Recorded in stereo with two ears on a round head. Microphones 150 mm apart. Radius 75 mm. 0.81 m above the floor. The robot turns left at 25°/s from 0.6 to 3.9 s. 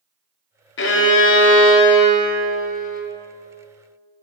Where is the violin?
100° left, 0.5 m; by 3.0 s 45° left, 0.5 m.